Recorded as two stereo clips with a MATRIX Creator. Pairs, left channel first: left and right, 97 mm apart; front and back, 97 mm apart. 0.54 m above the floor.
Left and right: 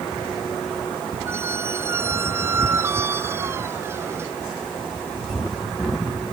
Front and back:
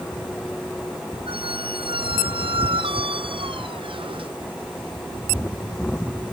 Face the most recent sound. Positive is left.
turn(degrees=-155)